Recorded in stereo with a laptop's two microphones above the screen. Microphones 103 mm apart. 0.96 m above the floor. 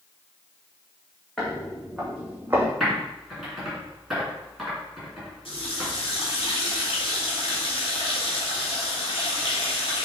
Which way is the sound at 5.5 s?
55° left (ahead or behind).